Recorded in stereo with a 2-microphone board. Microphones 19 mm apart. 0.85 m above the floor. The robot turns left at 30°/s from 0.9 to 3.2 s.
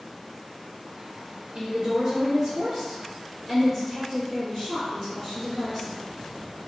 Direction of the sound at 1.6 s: 110° right.